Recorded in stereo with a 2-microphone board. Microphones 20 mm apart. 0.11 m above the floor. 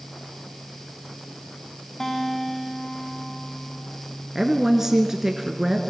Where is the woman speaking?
20° right (ahead or behind), 1.3 m.